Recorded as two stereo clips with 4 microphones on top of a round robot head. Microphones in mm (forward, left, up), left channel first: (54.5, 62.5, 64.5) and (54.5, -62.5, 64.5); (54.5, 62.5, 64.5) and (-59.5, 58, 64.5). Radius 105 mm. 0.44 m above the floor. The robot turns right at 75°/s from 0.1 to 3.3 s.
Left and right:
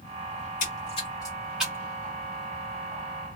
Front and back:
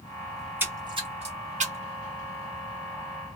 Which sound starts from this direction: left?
A splash, at 0.4 s.